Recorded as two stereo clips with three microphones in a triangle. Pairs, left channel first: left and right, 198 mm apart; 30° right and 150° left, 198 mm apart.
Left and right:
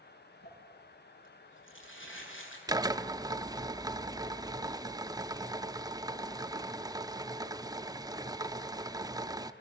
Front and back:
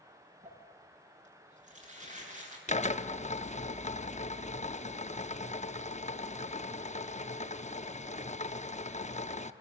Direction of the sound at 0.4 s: 100° left.